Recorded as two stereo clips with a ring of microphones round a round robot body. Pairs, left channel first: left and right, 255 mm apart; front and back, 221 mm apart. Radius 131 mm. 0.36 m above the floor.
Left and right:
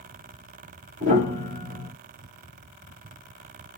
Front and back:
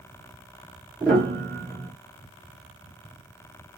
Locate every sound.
1.0 s a piano: 80° right, 1.3 m